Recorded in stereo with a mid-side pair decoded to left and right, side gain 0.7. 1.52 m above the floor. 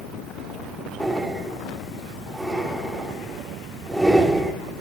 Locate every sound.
1.0 s breathing: straight ahead, 3.5 m